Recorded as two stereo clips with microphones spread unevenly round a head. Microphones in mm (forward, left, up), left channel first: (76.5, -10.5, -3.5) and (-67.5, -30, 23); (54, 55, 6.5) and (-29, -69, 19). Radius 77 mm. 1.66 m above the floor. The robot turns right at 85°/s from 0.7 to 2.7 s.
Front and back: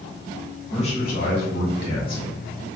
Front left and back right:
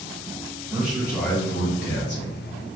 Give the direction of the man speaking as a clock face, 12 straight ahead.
2 o'clock.